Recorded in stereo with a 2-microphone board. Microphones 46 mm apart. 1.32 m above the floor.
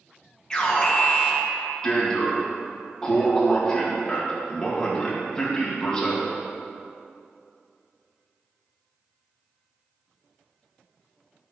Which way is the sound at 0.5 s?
20° left (ahead or behind).